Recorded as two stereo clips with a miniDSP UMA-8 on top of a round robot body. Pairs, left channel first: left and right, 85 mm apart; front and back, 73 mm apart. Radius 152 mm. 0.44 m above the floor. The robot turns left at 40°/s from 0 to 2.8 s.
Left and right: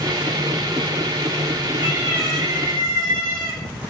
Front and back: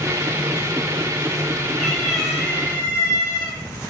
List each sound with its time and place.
1.8 s a cat meowing: 75° right, 4 m; by 3.6 s 115° right, 4 m